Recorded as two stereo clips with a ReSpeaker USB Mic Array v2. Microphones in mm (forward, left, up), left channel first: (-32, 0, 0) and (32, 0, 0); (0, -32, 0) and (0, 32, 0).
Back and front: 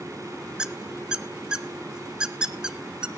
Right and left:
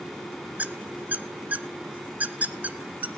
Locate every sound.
0.6 s a squeak: 65° left, 0.6 m